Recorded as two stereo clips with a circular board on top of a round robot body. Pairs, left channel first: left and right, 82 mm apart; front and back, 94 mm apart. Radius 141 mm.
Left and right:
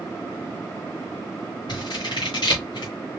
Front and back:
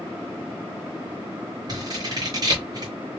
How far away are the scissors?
About 0.8 m.